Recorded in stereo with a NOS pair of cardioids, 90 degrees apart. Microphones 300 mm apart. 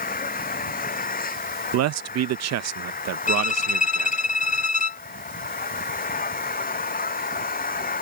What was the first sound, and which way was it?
An engine running, 30° left.